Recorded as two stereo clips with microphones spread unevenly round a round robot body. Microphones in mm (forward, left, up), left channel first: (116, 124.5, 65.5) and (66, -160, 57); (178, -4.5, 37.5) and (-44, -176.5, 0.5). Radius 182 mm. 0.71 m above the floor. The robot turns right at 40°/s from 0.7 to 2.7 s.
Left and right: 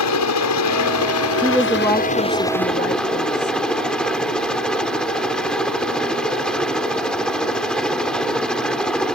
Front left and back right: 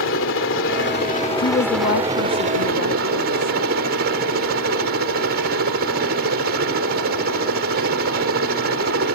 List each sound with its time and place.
0.0 s a helicopter: 90° left; by 9.2 s 170° left
1.4 s a woman speaking: 20° right; by 3.6 s 35° left